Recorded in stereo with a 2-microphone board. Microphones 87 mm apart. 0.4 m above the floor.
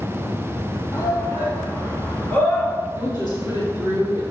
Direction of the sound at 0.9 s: 35° left (ahead or behind).